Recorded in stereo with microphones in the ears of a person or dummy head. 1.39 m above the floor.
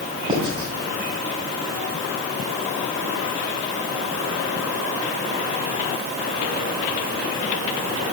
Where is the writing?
25° right (ahead or behind), 2.5 m.